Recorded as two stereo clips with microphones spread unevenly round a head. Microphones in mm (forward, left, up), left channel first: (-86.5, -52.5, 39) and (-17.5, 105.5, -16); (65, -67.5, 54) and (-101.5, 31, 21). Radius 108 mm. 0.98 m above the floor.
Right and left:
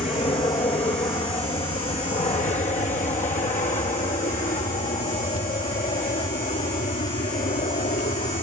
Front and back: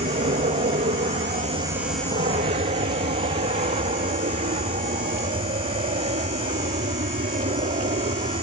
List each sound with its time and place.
0.0 s an aircraft: 175° right; by 8.4 s 160° right